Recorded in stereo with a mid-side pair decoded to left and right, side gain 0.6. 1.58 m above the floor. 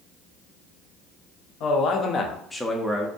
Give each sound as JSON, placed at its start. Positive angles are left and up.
{"t": 1.6, "sound": "a man speaking", "azimuth_deg": 65, "distance_m": 0.7}